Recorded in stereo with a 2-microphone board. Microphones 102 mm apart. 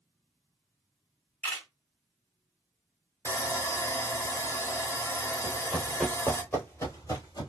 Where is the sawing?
30° left (ahead or behind), 0.8 m.